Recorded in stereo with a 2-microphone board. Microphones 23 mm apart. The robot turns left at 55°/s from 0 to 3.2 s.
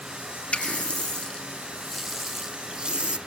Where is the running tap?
85° left, 1.3 m; by 3.2 s 65° right, 1.3 m.